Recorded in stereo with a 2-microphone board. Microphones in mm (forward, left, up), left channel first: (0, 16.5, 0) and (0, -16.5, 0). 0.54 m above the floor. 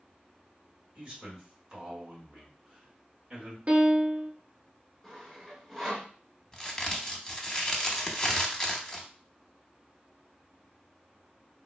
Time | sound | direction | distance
0.9 | a man speaking | 25° right (ahead or behind) | 1.8 m
3.7 | a piano | 45° right (ahead or behind) | 0.7 m
5.0 | sawing | centre (ahead or behind) | 1.4 m
6.5 | a crack | 15° left (ahead or behind) | 0.7 m